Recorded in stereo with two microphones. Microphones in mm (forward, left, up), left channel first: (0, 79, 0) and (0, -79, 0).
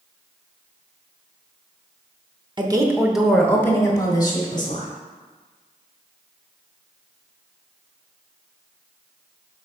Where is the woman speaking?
30° right (ahead or behind), 0.9 m; by 4.9 s 35° left (ahead or behind), 2.5 m.